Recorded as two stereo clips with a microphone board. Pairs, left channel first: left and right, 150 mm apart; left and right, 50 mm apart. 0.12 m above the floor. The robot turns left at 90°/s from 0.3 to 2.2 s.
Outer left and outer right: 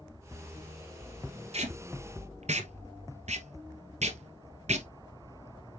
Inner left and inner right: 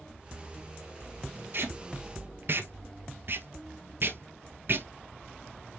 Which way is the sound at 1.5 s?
45° right (ahead or behind).